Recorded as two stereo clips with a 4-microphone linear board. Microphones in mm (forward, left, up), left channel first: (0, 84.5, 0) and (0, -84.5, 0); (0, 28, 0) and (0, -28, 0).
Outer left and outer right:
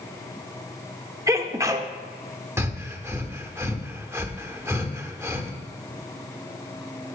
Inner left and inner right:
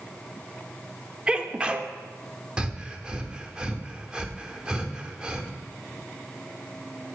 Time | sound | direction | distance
1.3 | a sneeze | 15° right (ahead or behind) | 0.8 m
2.6 | breathing | 15° right (ahead or behind) | 0.9 m